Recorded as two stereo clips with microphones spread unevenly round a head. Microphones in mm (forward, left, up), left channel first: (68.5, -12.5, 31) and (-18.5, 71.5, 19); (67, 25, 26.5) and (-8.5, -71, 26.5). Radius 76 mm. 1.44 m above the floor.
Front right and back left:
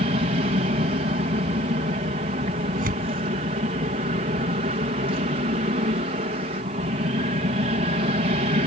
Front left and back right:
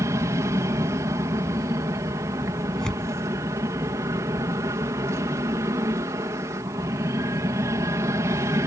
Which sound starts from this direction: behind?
An aircraft, at 0.0 s.